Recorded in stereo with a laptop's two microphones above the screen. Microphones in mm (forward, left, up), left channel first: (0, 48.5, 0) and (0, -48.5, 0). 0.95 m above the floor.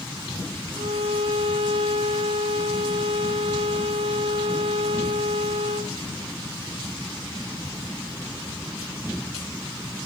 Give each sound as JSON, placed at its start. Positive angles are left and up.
{"t": 0.8, "sound": "a violin", "side_deg": -80, "distance_m": 1.8}